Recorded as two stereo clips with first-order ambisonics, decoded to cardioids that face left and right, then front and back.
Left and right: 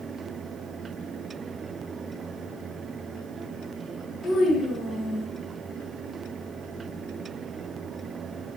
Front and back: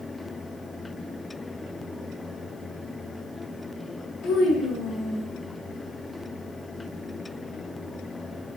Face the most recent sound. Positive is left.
turn(degrees=20)